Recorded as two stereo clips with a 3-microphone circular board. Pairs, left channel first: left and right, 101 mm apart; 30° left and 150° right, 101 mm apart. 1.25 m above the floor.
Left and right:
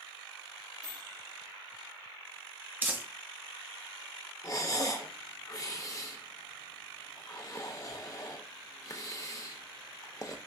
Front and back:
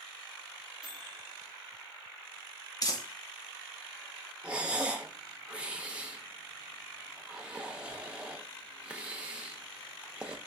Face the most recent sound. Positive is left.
turn(degrees=135)